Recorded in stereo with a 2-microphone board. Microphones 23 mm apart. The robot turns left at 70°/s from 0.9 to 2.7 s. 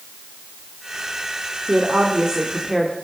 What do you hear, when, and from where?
1.7 s a woman speaking: 100° right, 2 m; by 3.0 s 170° right, 2 m